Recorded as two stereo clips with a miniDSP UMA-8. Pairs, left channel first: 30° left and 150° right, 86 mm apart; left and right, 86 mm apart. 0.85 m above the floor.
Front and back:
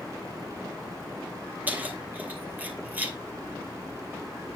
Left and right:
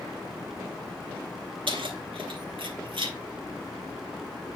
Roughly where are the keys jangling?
Right.